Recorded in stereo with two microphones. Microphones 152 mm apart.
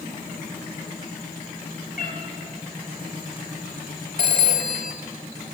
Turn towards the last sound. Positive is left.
turn(degrees=-65)  # may be behind; listen again after turning